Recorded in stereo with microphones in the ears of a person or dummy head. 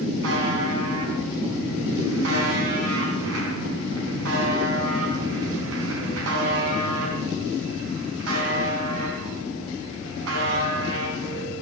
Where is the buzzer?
75° right (ahead or behind), 3.5 m.